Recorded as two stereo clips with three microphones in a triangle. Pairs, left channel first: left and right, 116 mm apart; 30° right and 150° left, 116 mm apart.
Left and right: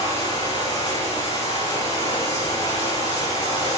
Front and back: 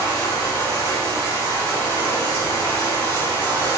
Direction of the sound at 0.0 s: 105° left.